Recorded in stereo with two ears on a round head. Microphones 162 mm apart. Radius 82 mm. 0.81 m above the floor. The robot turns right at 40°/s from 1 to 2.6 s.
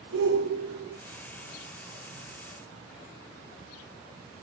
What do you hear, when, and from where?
0.1 s a shout: 60° right (ahead or behind), 1.4 m